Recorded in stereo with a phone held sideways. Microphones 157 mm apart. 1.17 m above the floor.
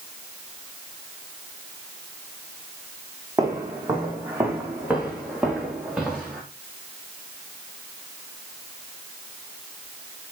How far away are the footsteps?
About 3.5 m.